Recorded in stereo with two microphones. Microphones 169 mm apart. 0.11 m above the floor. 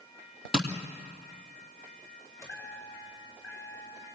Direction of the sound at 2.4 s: 20° left (ahead or behind).